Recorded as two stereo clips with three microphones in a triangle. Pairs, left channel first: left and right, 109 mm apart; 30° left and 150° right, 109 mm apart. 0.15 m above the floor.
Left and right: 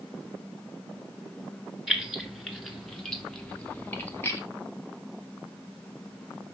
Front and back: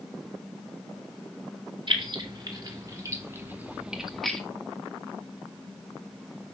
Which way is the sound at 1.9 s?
175° right.